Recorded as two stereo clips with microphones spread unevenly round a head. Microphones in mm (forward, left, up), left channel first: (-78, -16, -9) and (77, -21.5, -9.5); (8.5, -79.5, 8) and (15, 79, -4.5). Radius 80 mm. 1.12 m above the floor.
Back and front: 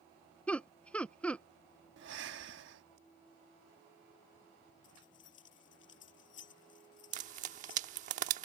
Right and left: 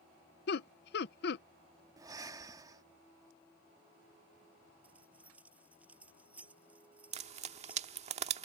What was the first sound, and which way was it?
Laughter, 100° right.